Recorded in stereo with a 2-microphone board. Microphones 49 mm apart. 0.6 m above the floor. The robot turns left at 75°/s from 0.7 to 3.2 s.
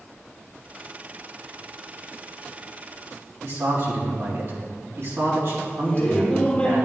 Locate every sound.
3.4 s a man speaking: 65° right (ahead or behind), 3.5 m
5.8 s laughter: 25° left (ahead or behind), 2 m